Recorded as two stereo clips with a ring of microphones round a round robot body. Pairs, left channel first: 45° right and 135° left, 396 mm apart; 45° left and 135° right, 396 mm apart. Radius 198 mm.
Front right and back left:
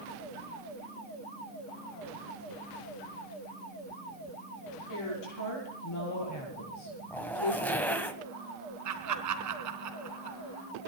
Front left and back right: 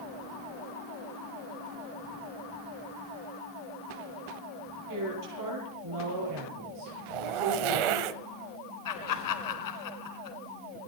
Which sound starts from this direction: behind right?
A zipper, at 7.1 s.